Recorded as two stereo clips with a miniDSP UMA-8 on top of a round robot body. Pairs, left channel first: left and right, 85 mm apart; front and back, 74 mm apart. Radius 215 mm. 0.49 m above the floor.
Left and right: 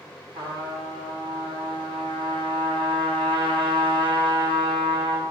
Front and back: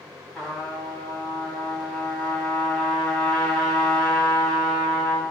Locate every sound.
0.3 s a trumpet: 85° right, 3.5 m